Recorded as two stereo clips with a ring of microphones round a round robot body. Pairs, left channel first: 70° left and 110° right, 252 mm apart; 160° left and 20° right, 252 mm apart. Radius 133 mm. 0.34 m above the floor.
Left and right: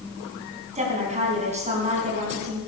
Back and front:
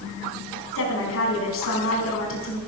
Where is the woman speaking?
175° right, 4 m.